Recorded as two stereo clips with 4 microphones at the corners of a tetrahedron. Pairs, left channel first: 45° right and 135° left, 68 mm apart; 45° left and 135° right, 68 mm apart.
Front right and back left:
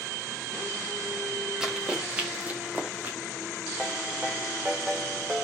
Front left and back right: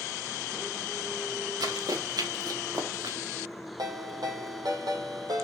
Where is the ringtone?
150° right, 3 m.